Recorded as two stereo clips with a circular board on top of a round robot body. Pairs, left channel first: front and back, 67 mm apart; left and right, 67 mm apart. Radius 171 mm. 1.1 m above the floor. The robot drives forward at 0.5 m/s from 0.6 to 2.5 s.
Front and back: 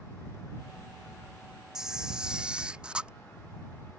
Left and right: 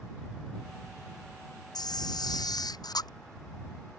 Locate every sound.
1.8 s a camera shutter: 100° left; by 3.1 s 105° left